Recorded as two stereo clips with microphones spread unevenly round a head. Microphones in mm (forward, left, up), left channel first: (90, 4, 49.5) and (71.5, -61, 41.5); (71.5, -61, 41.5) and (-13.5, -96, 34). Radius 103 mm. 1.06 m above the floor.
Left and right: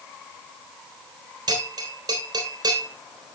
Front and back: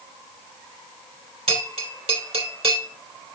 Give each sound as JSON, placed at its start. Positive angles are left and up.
{"t": 1.5, "sound": "a bell", "azimuth_deg": -145, "distance_m": 2.5}